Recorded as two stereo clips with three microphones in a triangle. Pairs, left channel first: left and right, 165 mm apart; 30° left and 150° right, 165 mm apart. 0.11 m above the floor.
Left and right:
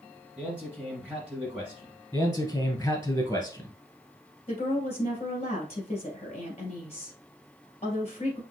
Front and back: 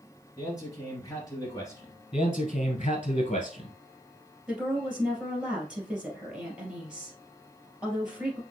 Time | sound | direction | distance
0.4 | a man speaking | 15° right | 1.6 m
2.1 | a man speaking | 25° left | 1.2 m
4.5 | a woman speaking | 125° left | 2.5 m